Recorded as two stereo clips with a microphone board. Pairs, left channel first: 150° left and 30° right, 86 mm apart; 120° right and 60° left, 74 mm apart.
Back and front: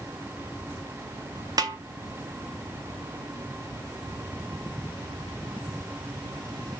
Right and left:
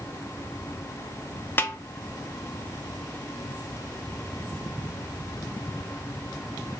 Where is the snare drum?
65° right, 0.5 m.